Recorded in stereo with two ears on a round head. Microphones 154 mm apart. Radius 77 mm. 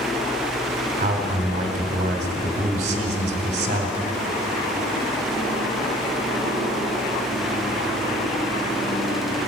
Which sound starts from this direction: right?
A man speaking, at 1.0 s.